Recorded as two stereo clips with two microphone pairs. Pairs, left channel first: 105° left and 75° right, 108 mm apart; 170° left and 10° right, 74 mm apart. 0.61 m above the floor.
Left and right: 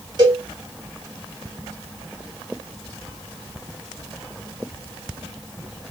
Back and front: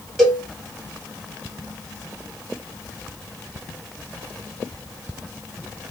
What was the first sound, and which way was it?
A cowbell, 105° right.